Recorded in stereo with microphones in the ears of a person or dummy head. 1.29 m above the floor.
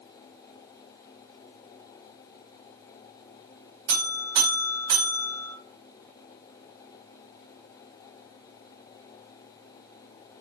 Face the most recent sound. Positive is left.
turn(degrees=-80)